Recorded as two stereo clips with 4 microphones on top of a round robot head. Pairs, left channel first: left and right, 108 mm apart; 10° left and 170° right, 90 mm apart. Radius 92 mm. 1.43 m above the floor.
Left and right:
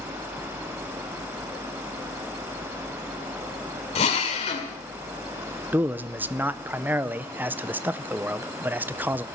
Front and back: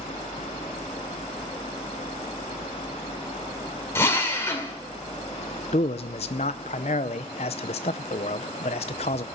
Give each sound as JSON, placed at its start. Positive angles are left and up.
{"t": 4.0, "sound": "a drill", "azimuth_deg": 70, "distance_m": 2.0}
{"t": 5.7, "sound": "a man speaking", "azimuth_deg": -20, "distance_m": 0.5}